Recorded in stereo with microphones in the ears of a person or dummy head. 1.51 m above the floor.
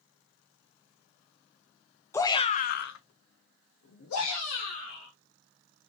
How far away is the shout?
About 0.6 m.